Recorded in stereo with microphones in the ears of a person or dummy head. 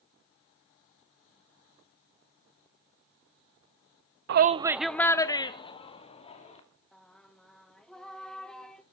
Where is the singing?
5° left (ahead or behind), 1.1 m.